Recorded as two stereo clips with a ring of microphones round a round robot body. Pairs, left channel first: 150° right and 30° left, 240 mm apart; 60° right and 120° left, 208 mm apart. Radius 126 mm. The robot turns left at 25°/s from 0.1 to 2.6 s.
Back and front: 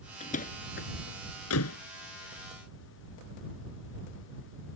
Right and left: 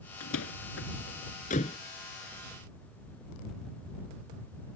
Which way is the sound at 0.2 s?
85° right.